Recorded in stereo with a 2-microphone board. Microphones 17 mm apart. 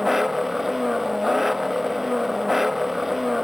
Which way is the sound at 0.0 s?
15° right (ahead or behind).